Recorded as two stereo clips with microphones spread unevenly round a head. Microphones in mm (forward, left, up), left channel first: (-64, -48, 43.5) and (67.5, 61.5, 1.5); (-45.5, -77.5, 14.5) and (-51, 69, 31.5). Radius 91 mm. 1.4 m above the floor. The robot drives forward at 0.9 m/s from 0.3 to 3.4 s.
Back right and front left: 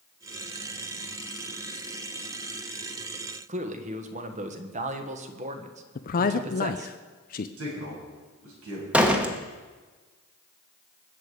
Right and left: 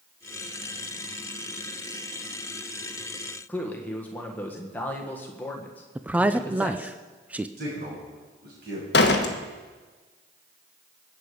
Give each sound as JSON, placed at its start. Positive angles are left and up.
{"t": 3.5, "sound": "a man speaking", "azimuth_deg": -10, "distance_m": 1.4}
{"t": 6.0, "sound": "a man speaking", "azimuth_deg": 175, "distance_m": 0.5}
{"t": 7.6, "sound": "a man speaking", "azimuth_deg": 50, "distance_m": 7.5}
{"t": 8.9, "sound": "a door slam", "azimuth_deg": -50, "distance_m": 1.0}